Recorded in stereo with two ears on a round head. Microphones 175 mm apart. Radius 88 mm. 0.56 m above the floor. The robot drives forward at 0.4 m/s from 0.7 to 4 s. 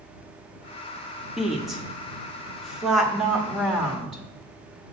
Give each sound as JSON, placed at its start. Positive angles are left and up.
{"t": 1.4, "sound": "a woman speaking", "side_deg": 0, "distance_m": 1.1}